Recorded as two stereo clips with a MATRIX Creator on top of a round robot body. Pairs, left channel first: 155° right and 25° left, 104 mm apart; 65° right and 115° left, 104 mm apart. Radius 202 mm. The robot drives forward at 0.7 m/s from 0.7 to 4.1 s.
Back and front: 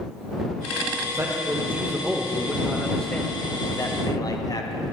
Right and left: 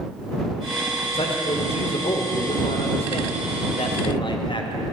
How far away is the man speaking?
About 2 m.